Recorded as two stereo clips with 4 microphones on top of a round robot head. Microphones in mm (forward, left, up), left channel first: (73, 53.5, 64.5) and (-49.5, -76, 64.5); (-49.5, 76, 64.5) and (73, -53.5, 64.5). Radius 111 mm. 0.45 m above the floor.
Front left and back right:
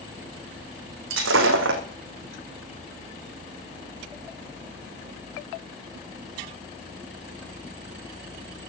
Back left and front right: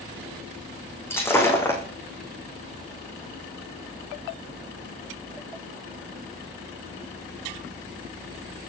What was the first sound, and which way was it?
Breaking glass, 150° right.